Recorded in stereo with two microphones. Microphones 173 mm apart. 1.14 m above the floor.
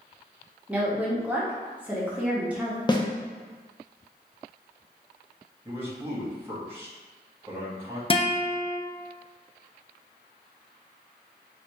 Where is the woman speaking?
10° right (ahead or behind), 1.1 m.